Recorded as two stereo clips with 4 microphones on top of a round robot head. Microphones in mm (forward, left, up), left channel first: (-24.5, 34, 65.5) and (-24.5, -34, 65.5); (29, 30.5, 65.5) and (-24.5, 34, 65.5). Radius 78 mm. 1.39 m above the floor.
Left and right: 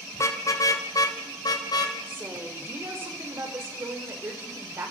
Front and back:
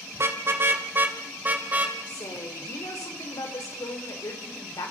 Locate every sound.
0.1 s a car horn: 135° left, 2 m; by 2.0 s 115° left, 3.5 m
2.1 s a woman speaking: 30° right, 5 m